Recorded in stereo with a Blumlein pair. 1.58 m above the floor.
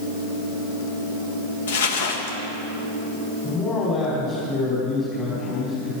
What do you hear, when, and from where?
1.7 s crumpling: 60° left, 1.6 m
3.4 s a man speaking: 20° left, 5 m